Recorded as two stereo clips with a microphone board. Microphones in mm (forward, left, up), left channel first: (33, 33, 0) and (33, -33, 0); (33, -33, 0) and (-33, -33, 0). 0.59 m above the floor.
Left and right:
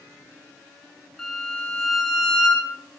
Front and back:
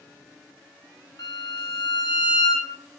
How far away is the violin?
About 0.8 m.